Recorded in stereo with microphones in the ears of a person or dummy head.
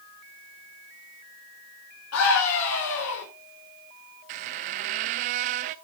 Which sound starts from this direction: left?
A scream, at 2.1 s.